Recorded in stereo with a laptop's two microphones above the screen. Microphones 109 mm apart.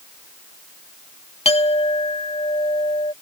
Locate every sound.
1.4 s a clink: 70° left (ahead or behind)